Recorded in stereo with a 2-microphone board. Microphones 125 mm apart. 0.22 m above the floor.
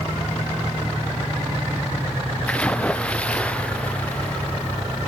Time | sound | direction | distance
2.5 | a splash | 10° left (ahead or behind) | ?